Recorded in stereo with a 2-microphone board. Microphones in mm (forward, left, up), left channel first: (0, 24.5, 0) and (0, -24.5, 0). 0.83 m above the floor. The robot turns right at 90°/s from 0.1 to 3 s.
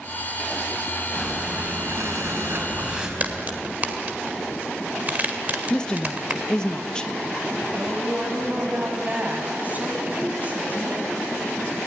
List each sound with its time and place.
1.1 s breathing: 170° left, 4 m; by 3.1 s 20° right, 4 m
3.2 s a crack: 35° right (ahead or behind), 1.9 m
5.7 s a woman speaking: 15° left (ahead or behind), 0.8 m
7.7 s a woman speaking: 35° right (ahead or behind), 5 m